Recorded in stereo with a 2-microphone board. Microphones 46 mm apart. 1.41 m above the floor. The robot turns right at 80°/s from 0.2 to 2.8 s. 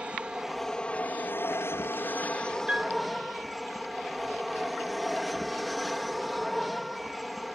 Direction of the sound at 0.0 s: 25° right.